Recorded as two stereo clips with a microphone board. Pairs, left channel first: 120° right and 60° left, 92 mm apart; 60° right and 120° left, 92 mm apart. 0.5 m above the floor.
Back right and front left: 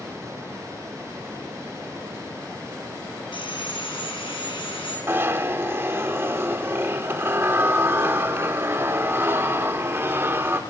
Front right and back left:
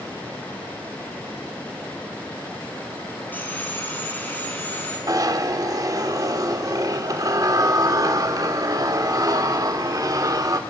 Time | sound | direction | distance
3.3 | sawing | 130° right | 5 m
5.1 | a zipper | 105° left | 1.2 m